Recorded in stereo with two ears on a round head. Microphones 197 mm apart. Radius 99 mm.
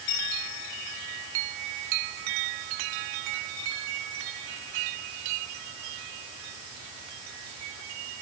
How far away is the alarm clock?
I don't hear an alarm clock.